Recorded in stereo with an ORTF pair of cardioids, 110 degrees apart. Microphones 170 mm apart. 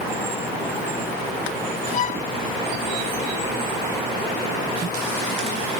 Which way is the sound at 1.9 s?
45° left.